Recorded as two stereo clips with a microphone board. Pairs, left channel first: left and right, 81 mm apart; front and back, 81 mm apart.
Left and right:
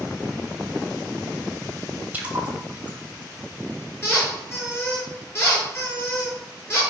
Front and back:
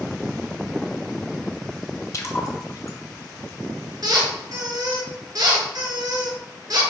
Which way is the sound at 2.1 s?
25° right.